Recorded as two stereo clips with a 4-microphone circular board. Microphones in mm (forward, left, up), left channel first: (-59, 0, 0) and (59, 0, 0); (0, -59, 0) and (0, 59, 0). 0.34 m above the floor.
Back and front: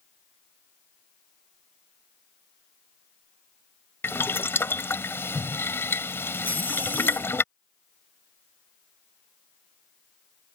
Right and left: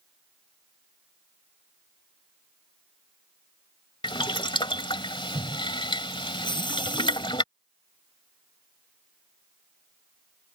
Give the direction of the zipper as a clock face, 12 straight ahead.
5 o'clock.